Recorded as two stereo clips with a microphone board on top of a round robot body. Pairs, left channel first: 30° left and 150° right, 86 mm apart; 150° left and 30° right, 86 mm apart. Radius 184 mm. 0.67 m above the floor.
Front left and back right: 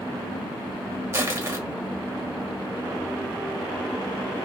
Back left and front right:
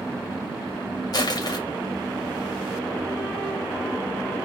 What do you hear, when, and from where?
1.1 s crushing: 160° left, 1.4 m